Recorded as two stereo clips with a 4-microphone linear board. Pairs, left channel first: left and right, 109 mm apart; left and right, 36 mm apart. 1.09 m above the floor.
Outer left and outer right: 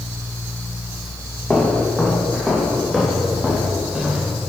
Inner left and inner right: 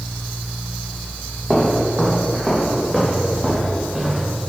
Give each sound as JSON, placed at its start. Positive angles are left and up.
{"t": 1.5, "sound": "footsteps", "side_deg": 10, "distance_m": 3.0}